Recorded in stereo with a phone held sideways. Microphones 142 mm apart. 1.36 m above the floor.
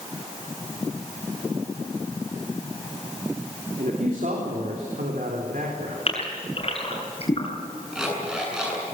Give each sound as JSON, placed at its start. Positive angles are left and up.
{"t": 3.8, "sound": "a man speaking", "side_deg": -80, "distance_m": 3.0}
{"t": 6.1, "sound": "a gasp", "side_deg": 45, "distance_m": 7.5}
{"t": 7.9, "sound": "an alarm clock", "side_deg": -5, "distance_m": 7.0}